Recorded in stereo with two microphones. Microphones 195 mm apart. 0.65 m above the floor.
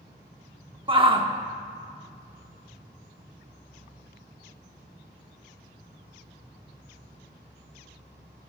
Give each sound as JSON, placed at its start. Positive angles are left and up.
{"t": 0.9, "sound": "a shout", "side_deg": -25, "distance_m": 1.0}